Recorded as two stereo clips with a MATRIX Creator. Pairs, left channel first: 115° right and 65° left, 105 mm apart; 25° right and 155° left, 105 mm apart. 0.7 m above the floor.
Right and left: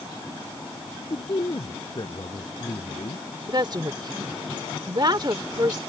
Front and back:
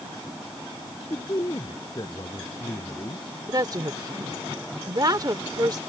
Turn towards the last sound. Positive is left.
turn(degrees=110)